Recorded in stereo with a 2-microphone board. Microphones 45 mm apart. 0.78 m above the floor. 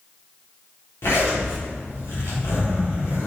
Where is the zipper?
65° left (ahead or behind), 1.2 m.